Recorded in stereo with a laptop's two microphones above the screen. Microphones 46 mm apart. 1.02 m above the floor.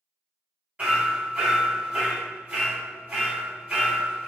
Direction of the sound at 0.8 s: 30° right (ahead or behind).